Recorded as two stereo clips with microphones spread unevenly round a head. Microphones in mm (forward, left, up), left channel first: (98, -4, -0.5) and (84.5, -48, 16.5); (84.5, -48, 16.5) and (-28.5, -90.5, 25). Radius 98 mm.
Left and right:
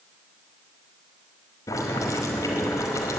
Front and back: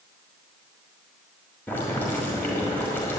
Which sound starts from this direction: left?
Boiling, at 1.7 s.